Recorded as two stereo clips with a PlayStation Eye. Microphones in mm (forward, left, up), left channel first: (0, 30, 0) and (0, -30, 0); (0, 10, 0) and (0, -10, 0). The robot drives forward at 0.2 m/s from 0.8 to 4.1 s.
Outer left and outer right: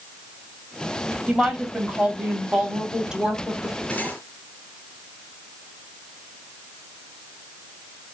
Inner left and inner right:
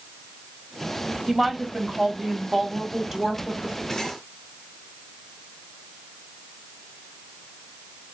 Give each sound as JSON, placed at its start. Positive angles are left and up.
{"t": 1.3, "sound": "a woman speaking", "side_deg": -15, "distance_m": 2.5}
{"t": 3.9, "sound": "cutlery clinking", "side_deg": 25, "distance_m": 4.0}